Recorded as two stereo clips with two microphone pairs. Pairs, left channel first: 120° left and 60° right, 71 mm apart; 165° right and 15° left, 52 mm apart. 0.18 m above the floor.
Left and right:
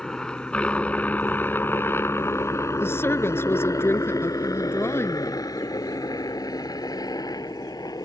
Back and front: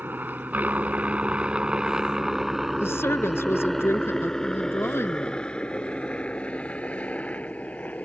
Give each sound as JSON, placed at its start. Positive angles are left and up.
{"t": 0.0, "sound": "a helicopter", "azimuth_deg": 45}
{"t": 2.8, "sound": "a woman speaking", "azimuth_deg": 170}